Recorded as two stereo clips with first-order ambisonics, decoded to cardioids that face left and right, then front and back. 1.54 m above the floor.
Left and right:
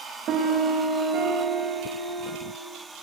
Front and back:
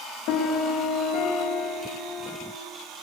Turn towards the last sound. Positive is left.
turn(degrees=-35)